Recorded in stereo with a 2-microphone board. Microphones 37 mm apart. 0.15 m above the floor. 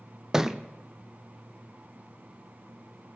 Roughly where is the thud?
Centre.